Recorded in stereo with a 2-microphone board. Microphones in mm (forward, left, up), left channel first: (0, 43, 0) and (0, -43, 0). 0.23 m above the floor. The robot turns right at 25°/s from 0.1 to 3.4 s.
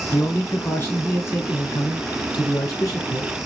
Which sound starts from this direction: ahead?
A man speaking, at 0.1 s.